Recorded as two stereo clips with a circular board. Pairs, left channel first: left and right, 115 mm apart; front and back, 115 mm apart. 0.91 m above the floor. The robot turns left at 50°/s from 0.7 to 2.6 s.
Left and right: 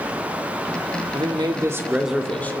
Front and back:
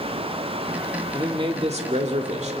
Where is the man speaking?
130° right, 2 m; by 2.6 s 160° left, 2 m.